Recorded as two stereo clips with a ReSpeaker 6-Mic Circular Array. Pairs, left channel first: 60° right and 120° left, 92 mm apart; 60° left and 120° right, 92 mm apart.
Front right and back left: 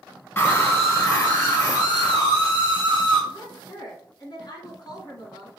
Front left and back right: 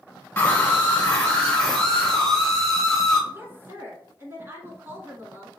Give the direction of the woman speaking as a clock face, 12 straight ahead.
2 o'clock.